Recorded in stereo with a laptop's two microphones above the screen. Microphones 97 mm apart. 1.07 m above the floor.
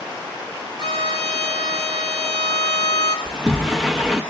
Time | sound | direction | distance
0.8 | a violin | 45° right (ahead or behind) | 5 m
3.2 | a sliding door | centre (ahead or behind) | 0.7 m